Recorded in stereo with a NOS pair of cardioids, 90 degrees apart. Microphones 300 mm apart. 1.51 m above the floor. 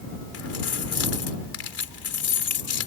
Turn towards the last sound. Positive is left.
turn(degrees=50)